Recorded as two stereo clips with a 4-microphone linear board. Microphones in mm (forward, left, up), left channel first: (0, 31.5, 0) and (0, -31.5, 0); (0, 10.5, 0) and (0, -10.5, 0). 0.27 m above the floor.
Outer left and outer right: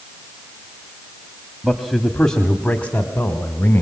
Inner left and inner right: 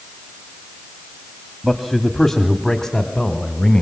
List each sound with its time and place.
1.6 s a man speaking: 5° right (ahead or behind), 1.3 m; by 3.8 s 35° left (ahead or behind), 1.9 m